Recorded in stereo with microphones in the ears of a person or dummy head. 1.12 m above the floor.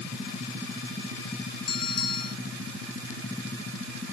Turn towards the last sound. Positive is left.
turn(degrees=25)  # may be behind; listen again after turning